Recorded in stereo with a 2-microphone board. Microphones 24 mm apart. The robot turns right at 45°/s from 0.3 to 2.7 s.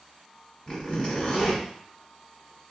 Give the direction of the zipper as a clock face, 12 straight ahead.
9 o'clock.